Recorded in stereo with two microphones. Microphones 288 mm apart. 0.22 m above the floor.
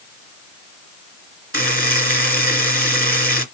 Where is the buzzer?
45° right (ahead or behind), 1.5 m.